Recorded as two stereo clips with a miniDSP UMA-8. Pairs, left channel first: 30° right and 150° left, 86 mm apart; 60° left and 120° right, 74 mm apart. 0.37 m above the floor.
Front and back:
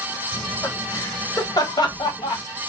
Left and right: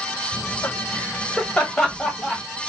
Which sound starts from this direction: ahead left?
Laughter, at 0.3 s.